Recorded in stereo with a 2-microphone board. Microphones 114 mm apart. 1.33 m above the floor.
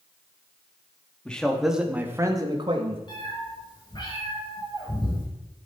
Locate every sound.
1.2 s a man speaking: 10° left (ahead or behind), 2.5 m; by 3.0 s 55° right (ahead or behind), 1.9 m
3.1 s a cat meowing: 45° left (ahead or behind), 6 m